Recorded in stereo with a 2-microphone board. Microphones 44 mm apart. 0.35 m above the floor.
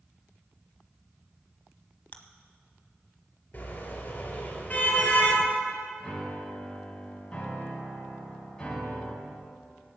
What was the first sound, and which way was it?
Chewing, 25° left (ahead or behind).